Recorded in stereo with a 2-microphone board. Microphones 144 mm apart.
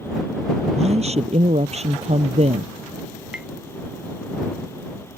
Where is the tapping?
5° right (ahead or behind).